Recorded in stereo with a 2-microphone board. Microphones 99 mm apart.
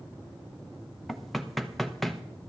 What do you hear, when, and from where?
1.1 s knocking: centre (ahead or behind), 0.8 m